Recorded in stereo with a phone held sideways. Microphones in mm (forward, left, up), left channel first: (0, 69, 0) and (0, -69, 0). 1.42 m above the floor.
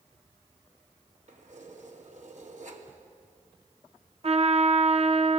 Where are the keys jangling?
60° right (ahead or behind), 2.5 m.